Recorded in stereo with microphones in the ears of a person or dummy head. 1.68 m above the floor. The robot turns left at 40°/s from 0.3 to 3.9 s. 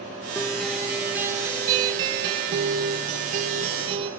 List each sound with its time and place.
0.3 s a guitar: 10° left, 0.9 m; by 4.1 s 130° right, 0.9 m